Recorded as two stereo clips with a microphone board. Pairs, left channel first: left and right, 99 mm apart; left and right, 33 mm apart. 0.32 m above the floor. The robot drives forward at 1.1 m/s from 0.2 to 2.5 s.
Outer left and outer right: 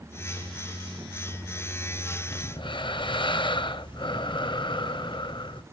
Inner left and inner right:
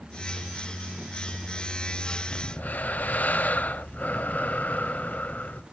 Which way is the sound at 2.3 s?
40° left (ahead or behind).